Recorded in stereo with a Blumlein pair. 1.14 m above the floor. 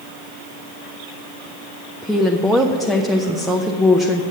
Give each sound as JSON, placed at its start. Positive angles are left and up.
{"t": 2.0, "sound": "a woman speaking", "azimuth_deg": 0, "distance_m": 0.6}